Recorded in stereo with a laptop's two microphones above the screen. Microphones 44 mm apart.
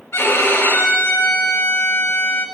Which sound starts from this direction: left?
A violin, at 0.1 s.